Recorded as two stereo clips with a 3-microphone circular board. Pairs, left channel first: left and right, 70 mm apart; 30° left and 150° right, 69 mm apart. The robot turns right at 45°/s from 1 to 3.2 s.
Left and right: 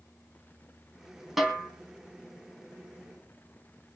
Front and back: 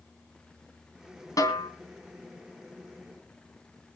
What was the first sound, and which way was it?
A snare drum, straight ahead.